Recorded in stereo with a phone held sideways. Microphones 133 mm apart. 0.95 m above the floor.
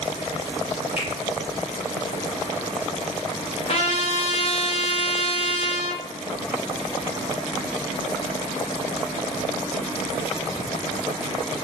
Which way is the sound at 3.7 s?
50° left (ahead or behind).